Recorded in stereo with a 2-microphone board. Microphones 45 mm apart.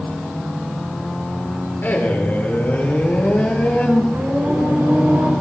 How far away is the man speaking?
About 4.5 m.